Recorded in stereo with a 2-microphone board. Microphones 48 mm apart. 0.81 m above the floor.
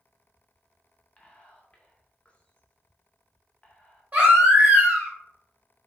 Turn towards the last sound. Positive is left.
turn(degrees=-30)  # may be behind; listen again after turning